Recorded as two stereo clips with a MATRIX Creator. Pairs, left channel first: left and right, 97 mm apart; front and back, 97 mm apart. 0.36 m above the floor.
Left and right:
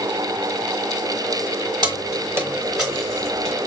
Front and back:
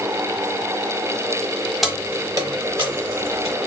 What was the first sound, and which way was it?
Keys jangling, 90° right.